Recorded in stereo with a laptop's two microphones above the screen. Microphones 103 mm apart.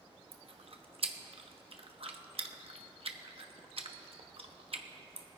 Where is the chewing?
65° right (ahead or behind), 1.0 m.